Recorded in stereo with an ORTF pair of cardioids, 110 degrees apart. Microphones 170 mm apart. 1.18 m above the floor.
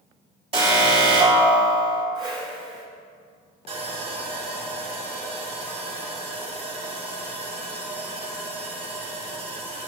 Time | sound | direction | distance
0.5 | an alarm | 35° right | 3.5 m
2.1 | a whoosh | 30° right | 3 m
3.7 | sawing | 40° right | 2.5 m